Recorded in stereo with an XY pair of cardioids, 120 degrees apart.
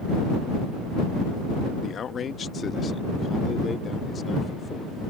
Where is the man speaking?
45° left; by 5.0 s 30° left.